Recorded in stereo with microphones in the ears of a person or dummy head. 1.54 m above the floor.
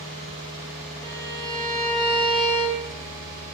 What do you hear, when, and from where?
1.0 s a violin: 15° left (ahead or behind), 0.7 m